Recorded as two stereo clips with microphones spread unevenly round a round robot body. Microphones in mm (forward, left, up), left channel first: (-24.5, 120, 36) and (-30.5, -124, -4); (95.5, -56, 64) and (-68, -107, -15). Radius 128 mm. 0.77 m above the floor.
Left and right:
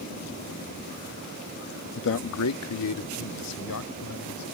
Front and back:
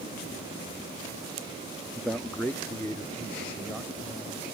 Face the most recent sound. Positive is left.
turn(degrees=100)